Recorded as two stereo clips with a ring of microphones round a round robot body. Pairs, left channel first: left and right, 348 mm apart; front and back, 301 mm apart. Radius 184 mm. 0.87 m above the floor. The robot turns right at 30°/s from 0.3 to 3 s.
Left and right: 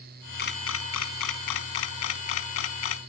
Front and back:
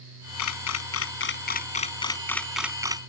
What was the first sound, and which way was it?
A camera shutter, 25° left.